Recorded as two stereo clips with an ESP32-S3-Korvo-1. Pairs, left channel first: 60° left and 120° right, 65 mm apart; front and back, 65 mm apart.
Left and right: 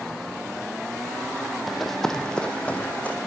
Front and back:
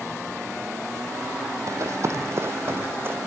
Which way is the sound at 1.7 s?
150° left.